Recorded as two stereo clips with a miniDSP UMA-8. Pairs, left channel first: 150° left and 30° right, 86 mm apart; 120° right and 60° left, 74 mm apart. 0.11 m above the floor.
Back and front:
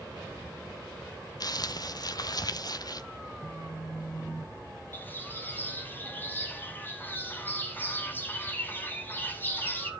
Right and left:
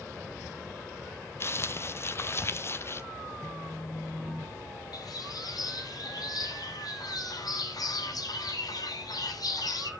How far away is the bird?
About 1.1 m.